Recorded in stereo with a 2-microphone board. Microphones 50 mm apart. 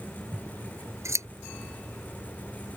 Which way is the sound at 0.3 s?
70° right (ahead or behind).